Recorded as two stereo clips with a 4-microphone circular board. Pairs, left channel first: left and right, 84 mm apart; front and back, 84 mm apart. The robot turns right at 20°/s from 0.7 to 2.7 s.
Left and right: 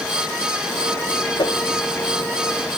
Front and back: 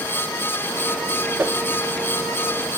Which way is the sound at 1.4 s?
115° left.